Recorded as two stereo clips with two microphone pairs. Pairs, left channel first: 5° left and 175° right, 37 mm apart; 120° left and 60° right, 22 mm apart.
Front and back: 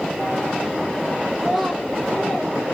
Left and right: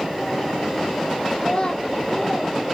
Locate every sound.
1.4 s a child speaking: 125° left, 0.7 m; by 2.5 s 25° left, 1.1 m